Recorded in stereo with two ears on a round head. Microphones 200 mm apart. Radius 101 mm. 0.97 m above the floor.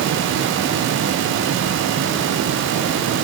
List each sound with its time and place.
Only background noise.